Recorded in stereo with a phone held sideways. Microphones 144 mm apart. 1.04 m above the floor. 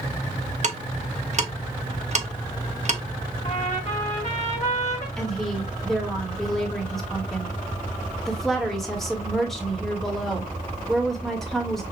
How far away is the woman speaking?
About 1.5 m.